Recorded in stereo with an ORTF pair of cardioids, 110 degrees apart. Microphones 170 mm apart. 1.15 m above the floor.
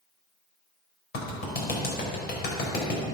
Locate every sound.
1.1 s a clap: 70° left, 5 m